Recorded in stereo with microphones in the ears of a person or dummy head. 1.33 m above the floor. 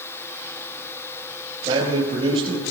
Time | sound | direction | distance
1.6 | a man speaking | 25° right (ahead or behind) | 5.5 m